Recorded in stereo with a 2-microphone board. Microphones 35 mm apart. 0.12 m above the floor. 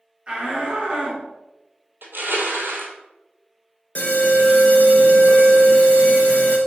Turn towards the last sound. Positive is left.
turn(degrees=45)  # may be behind; listen again after turning